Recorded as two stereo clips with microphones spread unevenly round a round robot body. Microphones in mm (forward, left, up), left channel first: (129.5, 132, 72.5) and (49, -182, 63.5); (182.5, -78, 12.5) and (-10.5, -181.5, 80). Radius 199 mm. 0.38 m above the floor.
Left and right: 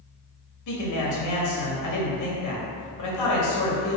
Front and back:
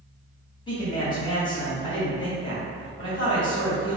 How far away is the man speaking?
About 2.5 m.